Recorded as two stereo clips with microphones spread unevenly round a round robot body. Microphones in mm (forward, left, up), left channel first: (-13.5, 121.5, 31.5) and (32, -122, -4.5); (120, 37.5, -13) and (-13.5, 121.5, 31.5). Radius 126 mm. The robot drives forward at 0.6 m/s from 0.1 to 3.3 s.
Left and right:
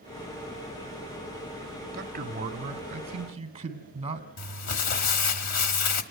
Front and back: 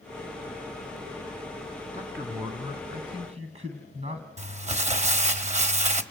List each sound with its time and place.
1.9 s a man speaking: 125° right, 2 m; by 4.3 s 140° right, 2.5 m
4.4 s crumpling: 105° left, 1.6 m